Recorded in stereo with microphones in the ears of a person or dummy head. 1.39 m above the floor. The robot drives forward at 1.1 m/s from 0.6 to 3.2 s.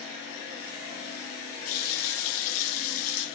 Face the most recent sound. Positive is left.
turn(degrees=65)  # may be behind; listen again after turning